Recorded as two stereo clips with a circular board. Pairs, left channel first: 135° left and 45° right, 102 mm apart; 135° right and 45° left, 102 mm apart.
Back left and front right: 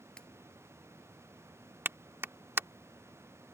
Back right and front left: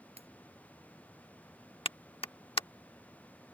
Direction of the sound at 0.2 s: 50° left.